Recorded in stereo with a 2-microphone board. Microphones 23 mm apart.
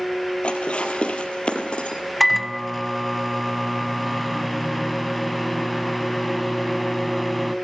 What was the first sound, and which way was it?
Dishes clattering, 65° left (ahead or behind).